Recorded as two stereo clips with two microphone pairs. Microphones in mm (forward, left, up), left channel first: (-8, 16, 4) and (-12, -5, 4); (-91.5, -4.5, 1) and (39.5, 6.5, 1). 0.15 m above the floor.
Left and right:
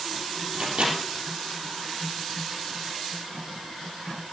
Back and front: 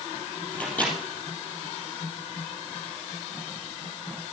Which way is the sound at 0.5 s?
95° right.